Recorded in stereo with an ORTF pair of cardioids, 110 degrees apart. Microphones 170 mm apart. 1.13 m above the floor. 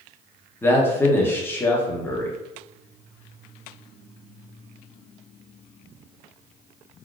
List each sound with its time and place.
0.6 s a man speaking: 15° left, 0.9 m